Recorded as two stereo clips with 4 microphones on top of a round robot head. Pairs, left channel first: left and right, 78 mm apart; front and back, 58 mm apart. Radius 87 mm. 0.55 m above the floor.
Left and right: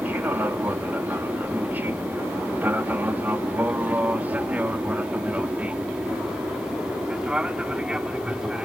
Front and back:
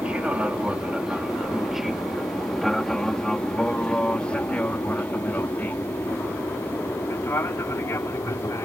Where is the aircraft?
125° right; by 8.7 s 15° right.